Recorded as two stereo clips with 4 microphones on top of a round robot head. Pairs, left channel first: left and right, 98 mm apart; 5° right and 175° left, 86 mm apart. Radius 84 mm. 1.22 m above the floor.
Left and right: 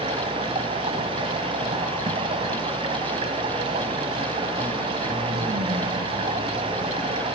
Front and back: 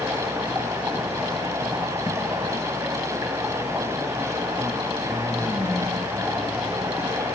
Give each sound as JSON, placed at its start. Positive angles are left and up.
{"t": 0.0, "sound": "running water", "azimuth_deg": -115, "distance_m": 2.0}